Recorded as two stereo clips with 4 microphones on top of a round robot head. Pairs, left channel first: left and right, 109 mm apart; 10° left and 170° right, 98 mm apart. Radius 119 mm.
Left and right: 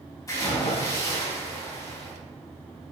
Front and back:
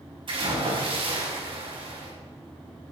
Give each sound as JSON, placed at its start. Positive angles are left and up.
{"t": 0.3, "sound": "a splash", "azimuth_deg": 155, "distance_m": 4.5}